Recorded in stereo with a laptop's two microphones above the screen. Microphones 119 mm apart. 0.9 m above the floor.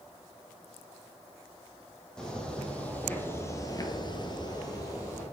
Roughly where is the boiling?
I don't hear boiling.